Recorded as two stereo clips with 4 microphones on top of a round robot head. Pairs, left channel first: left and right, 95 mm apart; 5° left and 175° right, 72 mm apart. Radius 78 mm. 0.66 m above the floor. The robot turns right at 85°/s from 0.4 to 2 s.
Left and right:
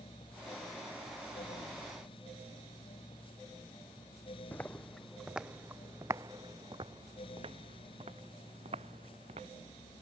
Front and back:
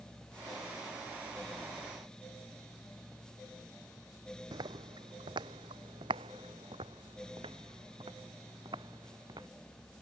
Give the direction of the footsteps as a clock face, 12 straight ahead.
6 o'clock.